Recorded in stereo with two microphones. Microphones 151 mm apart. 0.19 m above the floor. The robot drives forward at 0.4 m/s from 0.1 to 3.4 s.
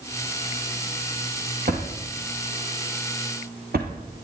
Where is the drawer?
65° right (ahead or behind), 2.5 m; by 3.9 s 75° right (ahead or behind), 2.5 m.